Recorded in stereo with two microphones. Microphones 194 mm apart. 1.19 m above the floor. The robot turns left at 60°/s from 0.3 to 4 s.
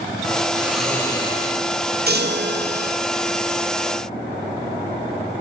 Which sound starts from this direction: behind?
Snoring, at 0.6 s.